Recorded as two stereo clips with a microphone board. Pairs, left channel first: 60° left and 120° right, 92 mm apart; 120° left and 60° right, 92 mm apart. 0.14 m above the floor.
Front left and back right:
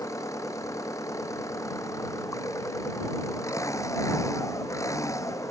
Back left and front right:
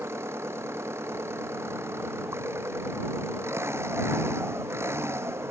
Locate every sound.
0.0 s an engine running: 5° left